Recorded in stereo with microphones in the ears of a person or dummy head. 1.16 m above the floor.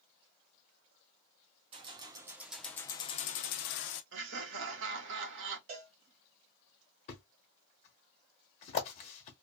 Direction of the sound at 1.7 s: 30° right (ahead or behind).